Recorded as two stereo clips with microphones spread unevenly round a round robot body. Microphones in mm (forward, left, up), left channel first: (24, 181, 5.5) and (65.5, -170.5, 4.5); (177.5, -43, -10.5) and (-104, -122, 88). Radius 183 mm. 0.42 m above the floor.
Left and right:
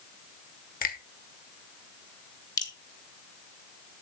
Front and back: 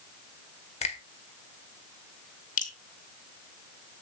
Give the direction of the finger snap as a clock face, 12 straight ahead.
11 o'clock.